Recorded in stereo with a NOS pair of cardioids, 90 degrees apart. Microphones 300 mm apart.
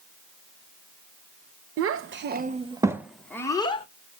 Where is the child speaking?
55° right, 0.8 m; by 3.9 s 20° left, 1.0 m.